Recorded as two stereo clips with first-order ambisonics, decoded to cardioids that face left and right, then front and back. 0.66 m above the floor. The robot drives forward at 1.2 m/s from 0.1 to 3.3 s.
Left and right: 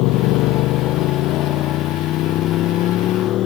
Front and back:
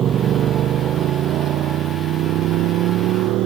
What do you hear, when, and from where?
0.0 s a motorcycle: 120° left; by 3.5 s 140° left